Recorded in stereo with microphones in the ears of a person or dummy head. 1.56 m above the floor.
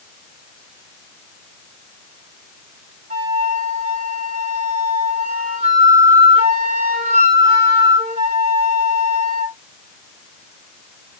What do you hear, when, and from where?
3.1 s a flute: 45° right (ahead or behind), 1.6 m